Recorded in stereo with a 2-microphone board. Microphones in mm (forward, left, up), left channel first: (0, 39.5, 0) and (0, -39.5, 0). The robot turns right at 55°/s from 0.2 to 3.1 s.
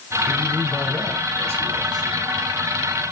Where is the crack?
I don't hear a crack.